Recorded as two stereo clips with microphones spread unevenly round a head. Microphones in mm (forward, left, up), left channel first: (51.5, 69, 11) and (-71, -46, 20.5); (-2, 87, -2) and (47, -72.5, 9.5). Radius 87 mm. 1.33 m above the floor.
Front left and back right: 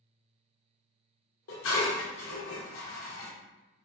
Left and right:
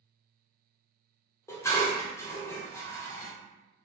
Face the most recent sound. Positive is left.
turn(degrees=30)